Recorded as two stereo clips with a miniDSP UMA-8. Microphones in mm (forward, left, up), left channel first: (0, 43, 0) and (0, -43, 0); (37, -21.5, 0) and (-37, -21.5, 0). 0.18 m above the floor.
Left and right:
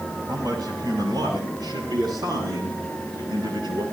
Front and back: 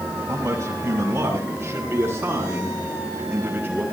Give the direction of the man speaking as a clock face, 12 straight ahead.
4 o'clock.